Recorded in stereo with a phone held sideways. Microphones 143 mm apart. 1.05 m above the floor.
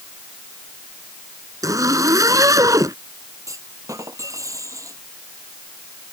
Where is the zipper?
25° right (ahead or behind).